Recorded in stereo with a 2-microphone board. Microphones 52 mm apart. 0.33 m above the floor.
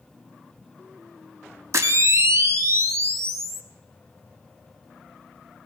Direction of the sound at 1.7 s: 65° right (ahead or behind).